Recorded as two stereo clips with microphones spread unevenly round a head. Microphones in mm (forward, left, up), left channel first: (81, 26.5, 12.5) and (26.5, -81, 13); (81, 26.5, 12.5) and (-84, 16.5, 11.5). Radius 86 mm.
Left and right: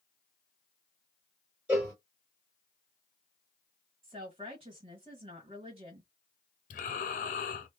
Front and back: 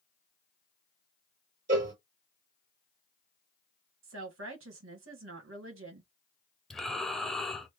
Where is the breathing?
90° left, 0.5 m.